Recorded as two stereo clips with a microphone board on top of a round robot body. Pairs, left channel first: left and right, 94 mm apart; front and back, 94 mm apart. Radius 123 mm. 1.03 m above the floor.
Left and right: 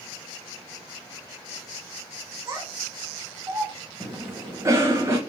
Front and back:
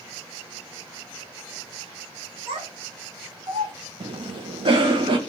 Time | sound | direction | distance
2.5 | a child speaking | 155° right | 1.7 m
4.0 | a cough | 150° right | 0.8 m